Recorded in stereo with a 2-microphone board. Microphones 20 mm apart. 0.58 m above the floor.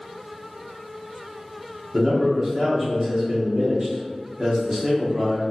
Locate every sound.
1.9 s a man speaking: 35° right (ahead or behind), 1.4 m